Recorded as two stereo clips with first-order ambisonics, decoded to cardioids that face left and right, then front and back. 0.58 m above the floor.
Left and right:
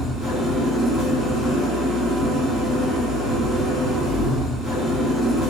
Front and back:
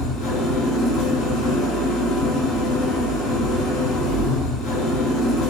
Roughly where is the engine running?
Ahead.